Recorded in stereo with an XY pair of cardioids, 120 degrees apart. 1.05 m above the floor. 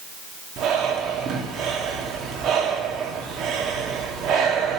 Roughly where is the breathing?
Ahead right.